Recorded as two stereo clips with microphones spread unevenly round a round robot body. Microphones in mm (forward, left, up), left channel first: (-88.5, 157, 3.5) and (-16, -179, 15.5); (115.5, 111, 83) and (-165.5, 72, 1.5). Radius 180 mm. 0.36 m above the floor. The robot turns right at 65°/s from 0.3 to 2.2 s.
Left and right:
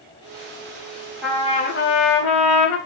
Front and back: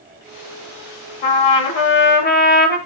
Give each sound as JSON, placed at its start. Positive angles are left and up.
{"t": 1.2, "sound": "a trumpet", "azimuth_deg": 10, "distance_m": 1.2}